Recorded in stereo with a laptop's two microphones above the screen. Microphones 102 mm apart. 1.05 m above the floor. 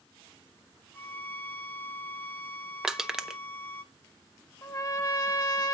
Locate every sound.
0.9 s a violin: 20° left (ahead or behind), 0.7 m
2.8 s crushing: 5° right (ahead or behind), 0.7 m
4.6 s a trumpet: 40° left (ahead or behind), 1.8 m